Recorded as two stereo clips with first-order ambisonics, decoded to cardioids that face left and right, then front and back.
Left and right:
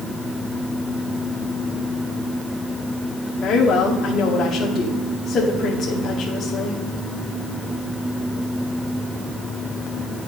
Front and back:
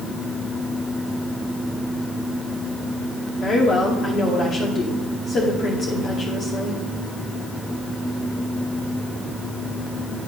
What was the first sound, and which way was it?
A woman speaking, 40° left.